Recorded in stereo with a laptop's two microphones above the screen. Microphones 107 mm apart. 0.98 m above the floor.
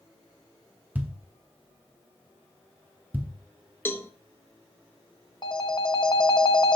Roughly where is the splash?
No splash in this recording.